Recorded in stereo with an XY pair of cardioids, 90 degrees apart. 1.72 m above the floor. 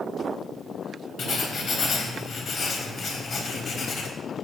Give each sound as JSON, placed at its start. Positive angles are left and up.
{"t": 1.2, "sound": "writing", "azimuth_deg": 65, "distance_m": 4.0}